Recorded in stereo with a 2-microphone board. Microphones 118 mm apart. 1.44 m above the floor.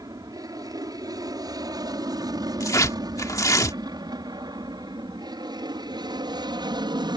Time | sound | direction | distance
0.0 | an aircraft | 35° right (ahead or behind) | ?
2.6 | tearing paper | 30° left (ahead or behind) | ?